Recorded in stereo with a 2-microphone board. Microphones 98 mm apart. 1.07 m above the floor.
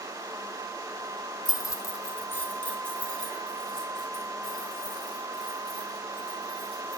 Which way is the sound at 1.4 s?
40° left (ahead or behind).